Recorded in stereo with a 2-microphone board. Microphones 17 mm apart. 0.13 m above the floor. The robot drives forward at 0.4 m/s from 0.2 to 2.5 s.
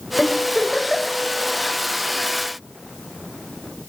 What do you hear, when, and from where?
0.2 s a giggle: centre (ahead or behind), 4.5 m